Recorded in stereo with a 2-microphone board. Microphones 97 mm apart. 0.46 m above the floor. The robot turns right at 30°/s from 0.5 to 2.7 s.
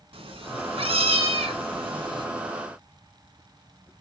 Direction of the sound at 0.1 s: 110° right.